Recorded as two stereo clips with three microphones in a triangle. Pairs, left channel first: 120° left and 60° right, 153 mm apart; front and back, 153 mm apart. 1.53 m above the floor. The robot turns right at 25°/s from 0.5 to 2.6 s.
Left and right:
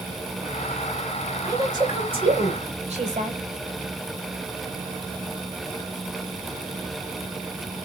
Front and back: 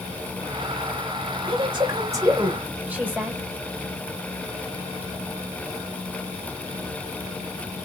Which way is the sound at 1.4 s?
130° right.